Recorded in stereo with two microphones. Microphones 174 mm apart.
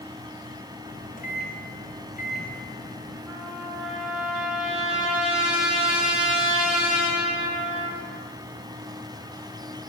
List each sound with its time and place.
0.9 s a microwave: 50° left (ahead or behind), 3.5 m
3.3 s a trumpet: 5° right (ahead or behind), 6.5 m